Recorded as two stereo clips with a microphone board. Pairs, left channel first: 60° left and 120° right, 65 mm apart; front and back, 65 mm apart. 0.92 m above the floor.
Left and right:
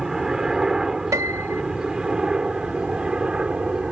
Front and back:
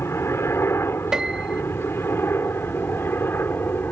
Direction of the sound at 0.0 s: 40° right.